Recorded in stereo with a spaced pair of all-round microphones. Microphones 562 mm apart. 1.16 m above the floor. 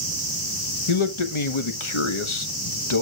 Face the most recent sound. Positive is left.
turn(degrees=55)  # may be behind; listen again after turning